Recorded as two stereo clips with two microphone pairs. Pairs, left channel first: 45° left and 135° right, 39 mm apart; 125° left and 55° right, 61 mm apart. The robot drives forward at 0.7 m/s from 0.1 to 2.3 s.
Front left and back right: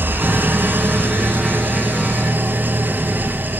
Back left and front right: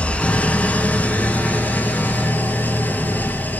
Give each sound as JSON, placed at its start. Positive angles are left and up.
{"t": 0.0, "sound": "an engine running", "azimuth_deg": -165, "distance_m": 1.5}